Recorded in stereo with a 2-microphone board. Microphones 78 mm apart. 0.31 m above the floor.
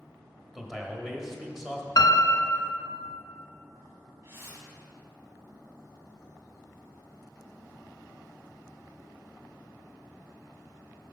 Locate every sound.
0.6 s a man speaking: 5° right (ahead or behind), 1.0 m
2.0 s a piano: 70° left (ahead or behind), 0.7 m
4.2 s a whoosh: 35° right (ahead or behind), 1.7 m